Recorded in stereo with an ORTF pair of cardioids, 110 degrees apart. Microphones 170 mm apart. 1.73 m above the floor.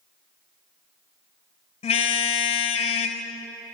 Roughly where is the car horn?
Ahead left.